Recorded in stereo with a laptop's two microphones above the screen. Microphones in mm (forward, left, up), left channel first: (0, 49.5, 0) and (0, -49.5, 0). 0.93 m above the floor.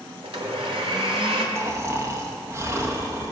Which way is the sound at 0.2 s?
80° right.